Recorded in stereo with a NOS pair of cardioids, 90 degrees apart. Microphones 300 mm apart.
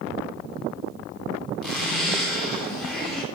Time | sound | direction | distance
1.6 | a zipper | straight ahead | 3.5 m